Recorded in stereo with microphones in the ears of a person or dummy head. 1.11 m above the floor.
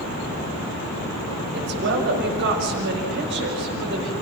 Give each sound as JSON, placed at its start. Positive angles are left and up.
{"t": 1.5, "sound": "a woman speaking", "side_deg": -65, "distance_m": 6.0}